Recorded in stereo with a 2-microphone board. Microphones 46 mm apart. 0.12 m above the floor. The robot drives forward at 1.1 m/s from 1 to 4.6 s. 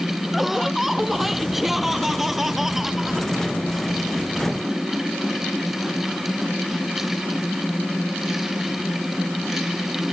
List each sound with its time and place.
0.3 s laughter: 5° right (ahead or behind); by 3.3 s 10° right (ahead or behind)